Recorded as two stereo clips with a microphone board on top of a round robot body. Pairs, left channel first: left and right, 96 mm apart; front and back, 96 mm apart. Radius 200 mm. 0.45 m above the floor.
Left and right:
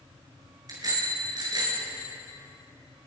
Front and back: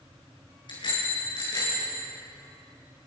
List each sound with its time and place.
0.7 s a bicycle bell: 40° right, 6.5 m; by 1.9 s 45° right, 7.5 m